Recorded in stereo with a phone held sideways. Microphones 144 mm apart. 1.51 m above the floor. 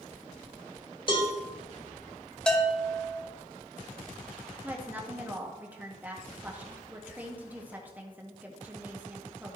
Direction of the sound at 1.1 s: 35° left (ahead or behind).